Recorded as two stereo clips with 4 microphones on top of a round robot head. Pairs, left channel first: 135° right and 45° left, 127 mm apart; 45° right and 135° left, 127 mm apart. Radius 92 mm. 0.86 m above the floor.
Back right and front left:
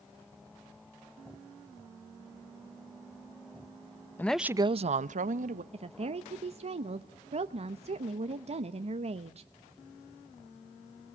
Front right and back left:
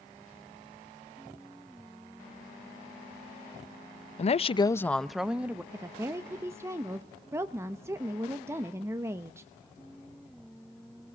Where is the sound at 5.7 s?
70° left, 0.9 m.